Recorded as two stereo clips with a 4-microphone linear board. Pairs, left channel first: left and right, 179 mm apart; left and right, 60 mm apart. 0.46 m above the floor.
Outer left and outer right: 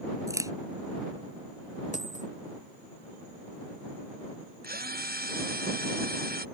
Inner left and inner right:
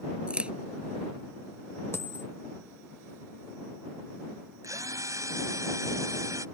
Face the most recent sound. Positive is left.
turn(degrees=-60)  # may be behind; listen again after turning